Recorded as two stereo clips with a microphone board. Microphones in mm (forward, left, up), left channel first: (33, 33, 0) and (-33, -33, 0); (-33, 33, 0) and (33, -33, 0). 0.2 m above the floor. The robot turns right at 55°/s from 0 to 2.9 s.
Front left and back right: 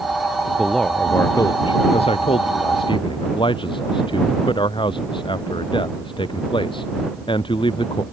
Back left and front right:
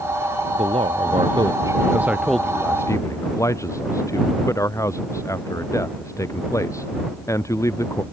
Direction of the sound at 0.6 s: 50° right.